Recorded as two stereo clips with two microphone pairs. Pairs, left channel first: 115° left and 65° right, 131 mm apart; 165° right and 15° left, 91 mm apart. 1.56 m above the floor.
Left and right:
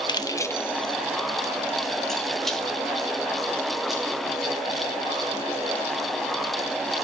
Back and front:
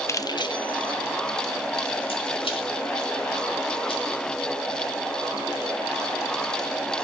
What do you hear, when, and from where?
0.1 s keys jangling: 150° left, 0.5 m; by 5.7 s 150° right, 5.5 m